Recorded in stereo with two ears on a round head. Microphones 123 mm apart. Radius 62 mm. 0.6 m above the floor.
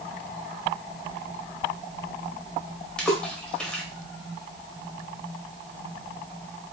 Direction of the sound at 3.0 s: 5° left (ahead or behind).